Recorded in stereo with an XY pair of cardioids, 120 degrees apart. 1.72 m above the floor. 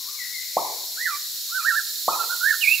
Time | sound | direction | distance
0.6 | a pop | straight ahead | 0.9 m